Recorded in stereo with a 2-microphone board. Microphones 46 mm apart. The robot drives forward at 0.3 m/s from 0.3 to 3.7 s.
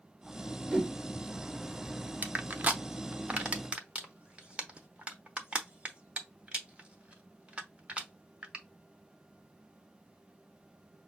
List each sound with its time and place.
0.7 s a whoosh: 20° right (ahead or behind), 1.9 m; by 0.9 s 25° right (ahead or behind), 1.8 m
2.2 s crushing: 40° right (ahead or behind), 0.7 m; by 8.6 s 25° right (ahead or behind), 0.9 m